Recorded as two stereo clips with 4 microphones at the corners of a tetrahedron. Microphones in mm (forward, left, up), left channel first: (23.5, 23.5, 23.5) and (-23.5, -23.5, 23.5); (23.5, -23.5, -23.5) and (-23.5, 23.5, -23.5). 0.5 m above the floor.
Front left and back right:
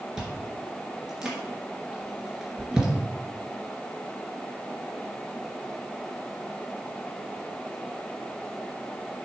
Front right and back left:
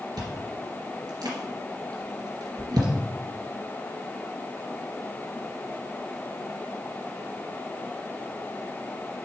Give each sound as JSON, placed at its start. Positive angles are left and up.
{"t": 0.2, "sound": "chewing", "azimuth_deg": 145, "distance_m": 2.5}